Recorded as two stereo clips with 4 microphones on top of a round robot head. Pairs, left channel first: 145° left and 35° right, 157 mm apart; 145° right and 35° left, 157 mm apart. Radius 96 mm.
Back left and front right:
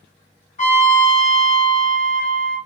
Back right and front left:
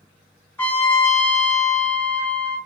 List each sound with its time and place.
0.6 s a trumpet: 145° left, 1.3 m